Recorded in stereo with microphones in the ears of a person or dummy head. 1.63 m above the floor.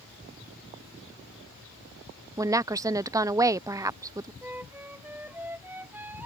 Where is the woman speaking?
15° right (ahead or behind).